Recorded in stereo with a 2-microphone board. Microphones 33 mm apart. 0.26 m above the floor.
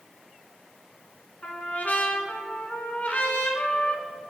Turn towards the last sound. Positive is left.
turn(degrees=55)  # may be behind; listen again after turning